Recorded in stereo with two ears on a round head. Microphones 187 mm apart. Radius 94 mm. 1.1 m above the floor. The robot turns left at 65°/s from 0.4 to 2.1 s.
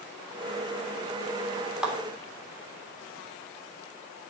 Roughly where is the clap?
Centre.